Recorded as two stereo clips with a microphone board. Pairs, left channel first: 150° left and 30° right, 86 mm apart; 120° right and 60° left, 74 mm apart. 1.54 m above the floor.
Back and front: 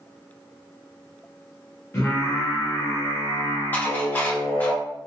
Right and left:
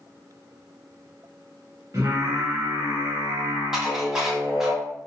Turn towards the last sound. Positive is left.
turn(degrees=130)